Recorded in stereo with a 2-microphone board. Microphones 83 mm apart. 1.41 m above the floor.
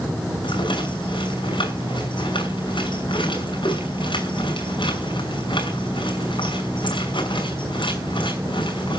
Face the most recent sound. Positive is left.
turn(degrees=75)  # may be behind; listen again after turning